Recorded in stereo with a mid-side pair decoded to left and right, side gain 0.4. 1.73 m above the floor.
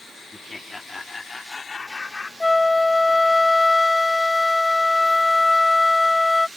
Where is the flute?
15° left.